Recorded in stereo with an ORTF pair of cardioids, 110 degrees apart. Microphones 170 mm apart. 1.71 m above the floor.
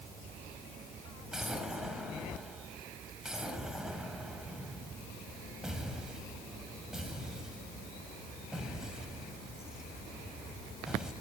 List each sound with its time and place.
1.3 s an explosion: 5° right, 4 m